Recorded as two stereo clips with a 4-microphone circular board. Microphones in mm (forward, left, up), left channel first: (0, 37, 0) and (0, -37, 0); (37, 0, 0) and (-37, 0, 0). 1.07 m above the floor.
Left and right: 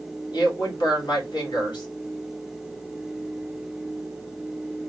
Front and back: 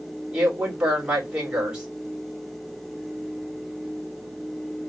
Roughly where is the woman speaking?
Left.